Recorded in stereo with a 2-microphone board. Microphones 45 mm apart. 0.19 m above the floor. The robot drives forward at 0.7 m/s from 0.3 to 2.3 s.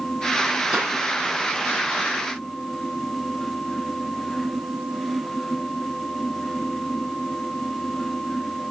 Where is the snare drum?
20° right (ahead or behind), 3.5 m.